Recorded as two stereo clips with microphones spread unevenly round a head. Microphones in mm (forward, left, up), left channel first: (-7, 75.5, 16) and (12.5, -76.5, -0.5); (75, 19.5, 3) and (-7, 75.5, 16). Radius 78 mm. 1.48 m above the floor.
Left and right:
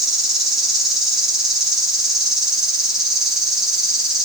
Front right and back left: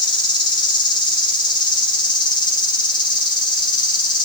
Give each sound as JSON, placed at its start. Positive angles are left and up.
{"t": 0.0, "sound": "an insect", "azimuth_deg": 5, "distance_m": 4.0}